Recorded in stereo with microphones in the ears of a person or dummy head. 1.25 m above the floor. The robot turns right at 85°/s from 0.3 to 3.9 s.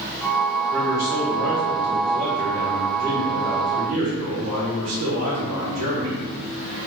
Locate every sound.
0.7 s a man speaking: 5° left, 1.2 m; by 6.2 s 85° right, 1.2 m